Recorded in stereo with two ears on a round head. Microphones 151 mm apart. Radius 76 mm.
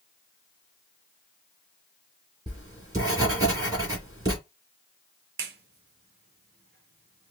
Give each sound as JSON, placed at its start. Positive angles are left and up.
{"t": 2.5, "sound": "writing", "side_deg": -20, "distance_m": 2.5}
{"t": 5.4, "sound": "a clap", "side_deg": -60, "distance_m": 0.7}